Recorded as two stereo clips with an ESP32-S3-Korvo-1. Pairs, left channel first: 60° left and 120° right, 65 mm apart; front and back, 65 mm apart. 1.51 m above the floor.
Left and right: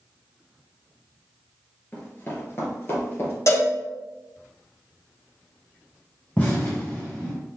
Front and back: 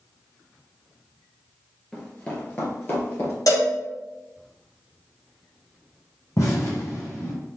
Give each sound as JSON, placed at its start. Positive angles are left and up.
{"t": 1.9, "sound": "running footsteps", "azimuth_deg": 65, "distance_m": 1.6}
{"t": 3.5, "sound": "a cowbell", "azimuth_deg": 20, "distance_m": 1.7}
{"t": 6.4, "sound": "an explosion", "azimuth_deg": 5, "distance_m": 2.0}